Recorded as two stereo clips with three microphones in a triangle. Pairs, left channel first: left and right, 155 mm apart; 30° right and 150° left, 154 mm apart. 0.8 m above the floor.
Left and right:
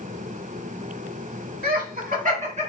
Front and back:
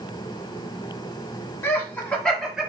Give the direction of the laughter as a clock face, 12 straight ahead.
3 o'clock.